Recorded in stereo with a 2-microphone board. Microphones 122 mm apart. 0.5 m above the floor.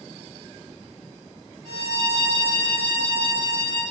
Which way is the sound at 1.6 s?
40° right (ahead or behind).